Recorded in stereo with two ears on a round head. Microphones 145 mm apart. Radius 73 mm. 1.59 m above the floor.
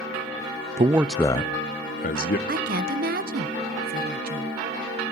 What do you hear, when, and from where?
0.8 s a man speaking: 35° right (ahead or behind), 0.5 m; by 2.4 s 55° left (ahead or behind), 1.5 m
2.5 s a woman speaking: 60° right (ahead or behind), 1.2 m